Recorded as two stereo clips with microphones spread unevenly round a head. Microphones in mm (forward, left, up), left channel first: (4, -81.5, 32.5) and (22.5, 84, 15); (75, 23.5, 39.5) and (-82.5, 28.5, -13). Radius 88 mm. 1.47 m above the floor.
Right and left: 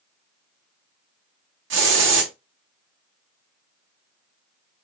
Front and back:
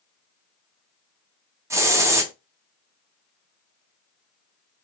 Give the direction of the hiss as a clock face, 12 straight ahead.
9 o'clock.